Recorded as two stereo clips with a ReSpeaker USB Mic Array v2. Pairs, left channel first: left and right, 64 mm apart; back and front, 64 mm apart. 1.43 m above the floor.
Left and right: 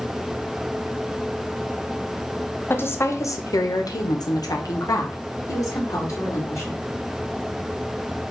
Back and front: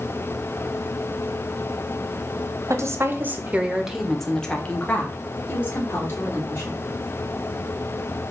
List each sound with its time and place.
2.7 s a woman speaking: 35° left, 0.8 m; by 6.8 s 130° left, 1.9 m